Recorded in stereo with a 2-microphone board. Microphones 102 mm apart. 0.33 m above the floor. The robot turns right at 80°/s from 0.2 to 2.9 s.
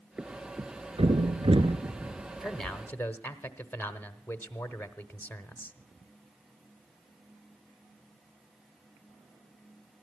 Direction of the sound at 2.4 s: 5° right.